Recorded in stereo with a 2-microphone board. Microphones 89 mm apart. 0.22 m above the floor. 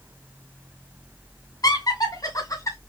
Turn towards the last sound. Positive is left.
turn(degrees=35)  # may be behind; listen again after turning